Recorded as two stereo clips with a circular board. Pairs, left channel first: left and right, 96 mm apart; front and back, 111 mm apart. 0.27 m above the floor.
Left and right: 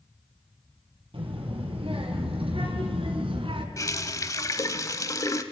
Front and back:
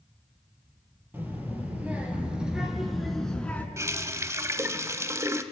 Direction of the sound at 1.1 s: 110° right.